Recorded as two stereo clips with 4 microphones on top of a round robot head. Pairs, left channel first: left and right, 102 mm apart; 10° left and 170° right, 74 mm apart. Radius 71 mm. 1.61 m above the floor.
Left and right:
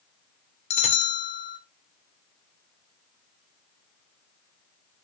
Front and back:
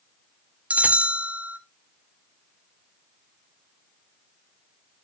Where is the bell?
115° left, 0.8 m.